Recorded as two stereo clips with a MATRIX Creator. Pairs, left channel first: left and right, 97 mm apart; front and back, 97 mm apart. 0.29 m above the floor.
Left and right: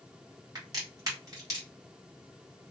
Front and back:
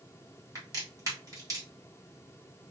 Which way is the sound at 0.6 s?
135° right.